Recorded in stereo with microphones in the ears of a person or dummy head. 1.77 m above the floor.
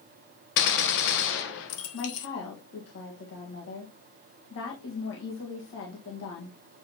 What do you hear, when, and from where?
0.6 s a gunshot: 60° left (ahead or behind), 1.1 m
1.9 s a woman speaking: 65° left (ahead or behind), 1.5 m